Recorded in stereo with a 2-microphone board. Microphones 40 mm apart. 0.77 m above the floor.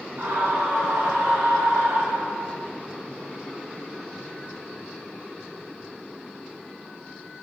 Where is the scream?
45° right (ahead or behind), 3.5 m; by 2.6 s 60° right (ahead or behind), 6 m.